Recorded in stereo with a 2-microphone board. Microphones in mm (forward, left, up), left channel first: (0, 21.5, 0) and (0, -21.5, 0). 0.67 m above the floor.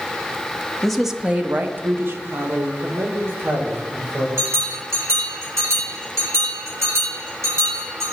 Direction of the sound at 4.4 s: 70° right (ahead or behind).